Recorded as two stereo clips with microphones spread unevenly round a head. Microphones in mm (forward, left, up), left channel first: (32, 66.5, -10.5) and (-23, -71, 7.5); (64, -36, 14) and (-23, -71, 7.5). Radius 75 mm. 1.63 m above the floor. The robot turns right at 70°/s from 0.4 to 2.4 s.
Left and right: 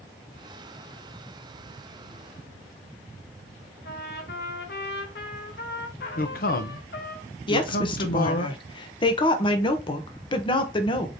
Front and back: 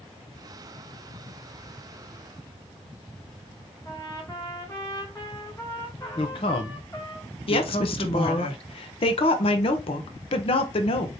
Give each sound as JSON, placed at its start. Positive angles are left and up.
{"t": 3.9, "sound": "a trumpet", "azimuth_deg": 95, "distance_m": 0.9}
{"t": 6.2, "sound": "a man speaking", "azimuth_deg": 45, "distance_m": 0.8}
{"t": 7.5, "sound": "a woman speaking", "azimuth_deg": 5, "distance_m": 0.9}